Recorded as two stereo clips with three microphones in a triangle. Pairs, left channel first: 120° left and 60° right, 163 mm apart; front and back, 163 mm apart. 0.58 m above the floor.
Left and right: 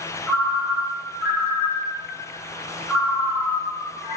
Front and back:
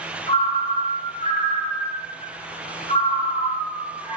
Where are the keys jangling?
No keys jangling in this recording.